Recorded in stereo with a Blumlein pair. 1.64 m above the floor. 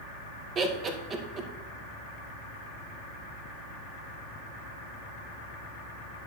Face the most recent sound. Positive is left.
turn(degrees=-25)